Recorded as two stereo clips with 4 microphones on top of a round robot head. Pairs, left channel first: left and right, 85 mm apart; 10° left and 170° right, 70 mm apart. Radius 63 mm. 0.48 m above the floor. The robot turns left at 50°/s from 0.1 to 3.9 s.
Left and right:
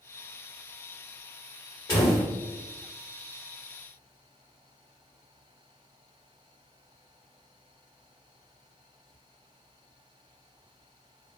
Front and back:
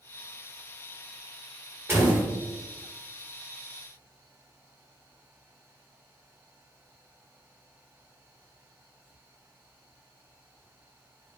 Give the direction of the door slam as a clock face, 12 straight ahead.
7 o'clock.